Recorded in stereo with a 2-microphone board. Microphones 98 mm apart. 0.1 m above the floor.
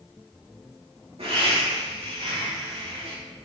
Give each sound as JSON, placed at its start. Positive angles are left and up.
{"t": 1.2, "sound": "laughter", "side_deg": -75, "distance_m": 5.5}